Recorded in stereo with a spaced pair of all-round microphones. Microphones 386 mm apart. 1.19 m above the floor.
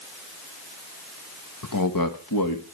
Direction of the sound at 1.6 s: 50° left (ahead or behind).